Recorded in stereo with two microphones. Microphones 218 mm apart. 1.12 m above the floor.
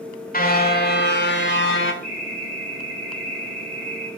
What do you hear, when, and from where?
0.3 s a car horn: 40° left (ahead or behind), 2.5 m; by 1.9 s 65° left (ahead or behind), 2.5 m
2.0 s an alarm: 45° left (ahead or behind), 10 m